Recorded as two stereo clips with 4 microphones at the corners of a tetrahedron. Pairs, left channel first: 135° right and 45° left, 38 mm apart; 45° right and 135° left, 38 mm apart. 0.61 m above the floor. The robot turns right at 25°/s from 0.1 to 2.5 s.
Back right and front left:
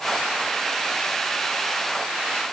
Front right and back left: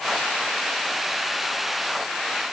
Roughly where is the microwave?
No microwave in this recording.